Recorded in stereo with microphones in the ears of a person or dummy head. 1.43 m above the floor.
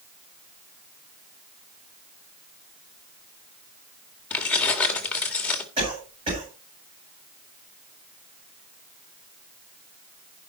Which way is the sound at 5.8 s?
30° right (ahead or behind).